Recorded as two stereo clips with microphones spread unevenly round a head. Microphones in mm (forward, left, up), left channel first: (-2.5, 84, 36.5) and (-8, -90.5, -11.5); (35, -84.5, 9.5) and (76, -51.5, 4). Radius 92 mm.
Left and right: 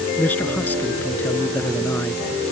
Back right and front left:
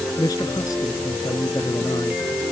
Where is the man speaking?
170° left.